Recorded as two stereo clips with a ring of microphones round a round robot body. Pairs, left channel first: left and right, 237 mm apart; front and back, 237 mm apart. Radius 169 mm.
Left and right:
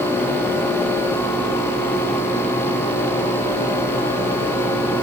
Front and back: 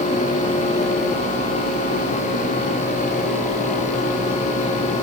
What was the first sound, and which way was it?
Only background noise.